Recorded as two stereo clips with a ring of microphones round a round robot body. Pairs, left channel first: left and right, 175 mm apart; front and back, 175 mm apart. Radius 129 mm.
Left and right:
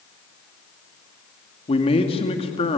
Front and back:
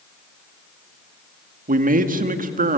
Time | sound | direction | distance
1.7 | a man speaking | 150° left | 1.9 m